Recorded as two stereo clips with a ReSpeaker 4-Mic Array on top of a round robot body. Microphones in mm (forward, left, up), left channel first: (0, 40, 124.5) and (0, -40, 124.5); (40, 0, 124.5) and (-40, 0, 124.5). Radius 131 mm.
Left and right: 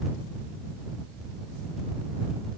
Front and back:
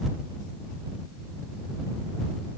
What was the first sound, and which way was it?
Only background noise.